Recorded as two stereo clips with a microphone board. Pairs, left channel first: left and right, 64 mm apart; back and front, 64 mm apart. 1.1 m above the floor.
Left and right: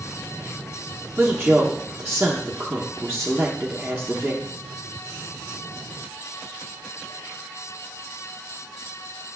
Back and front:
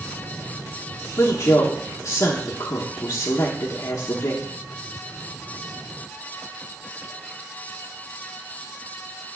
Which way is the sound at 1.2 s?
170° right.